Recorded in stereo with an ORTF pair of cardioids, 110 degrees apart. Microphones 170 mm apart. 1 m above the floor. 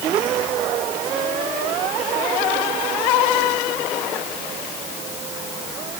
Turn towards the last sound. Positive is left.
No sound to turn to.